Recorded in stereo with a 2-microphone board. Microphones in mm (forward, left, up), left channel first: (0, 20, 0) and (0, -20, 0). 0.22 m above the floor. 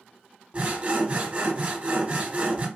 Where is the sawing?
30° right (ahead or behind), 1.2 m.